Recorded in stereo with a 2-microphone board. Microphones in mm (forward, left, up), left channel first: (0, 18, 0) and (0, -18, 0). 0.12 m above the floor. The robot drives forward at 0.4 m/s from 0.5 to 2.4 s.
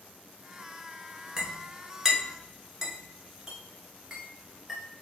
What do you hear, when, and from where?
1.4 s a clink: 15° right (ahead or behind), 0.8 m; by 4.8 s 10° right (ahead or behind), 1.0 m